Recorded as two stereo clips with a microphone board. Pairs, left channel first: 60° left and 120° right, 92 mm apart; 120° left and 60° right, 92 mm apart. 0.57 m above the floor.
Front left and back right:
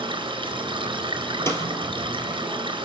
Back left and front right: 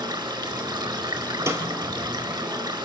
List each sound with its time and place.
0.0 s running water: 90° right, 4 m
1.5 s a snare drum: straight ahead, 3.5 m